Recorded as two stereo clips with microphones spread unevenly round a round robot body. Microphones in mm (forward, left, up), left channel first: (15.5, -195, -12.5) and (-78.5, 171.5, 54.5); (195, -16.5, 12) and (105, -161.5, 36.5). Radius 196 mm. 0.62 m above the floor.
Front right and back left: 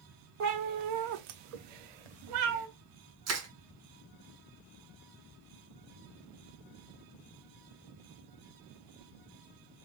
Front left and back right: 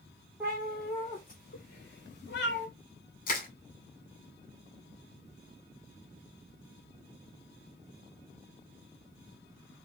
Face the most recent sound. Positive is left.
turn(degrees=50)